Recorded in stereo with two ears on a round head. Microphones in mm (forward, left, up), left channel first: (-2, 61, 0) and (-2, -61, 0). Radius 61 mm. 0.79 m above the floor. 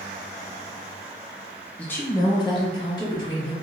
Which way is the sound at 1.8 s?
10° left (ahead or behind).